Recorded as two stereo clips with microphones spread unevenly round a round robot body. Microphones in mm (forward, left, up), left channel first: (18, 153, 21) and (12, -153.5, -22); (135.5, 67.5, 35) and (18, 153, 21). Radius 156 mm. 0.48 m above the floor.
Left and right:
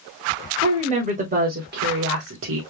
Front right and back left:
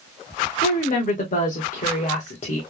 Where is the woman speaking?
25° right, 1.7 m; by 2.6 s 75° right, 1.4 m.